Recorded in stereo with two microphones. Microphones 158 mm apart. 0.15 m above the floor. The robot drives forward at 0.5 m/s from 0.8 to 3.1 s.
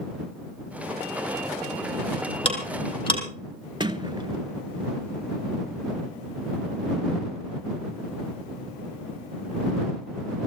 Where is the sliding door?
30° right (ahead or behind), 0.8 m.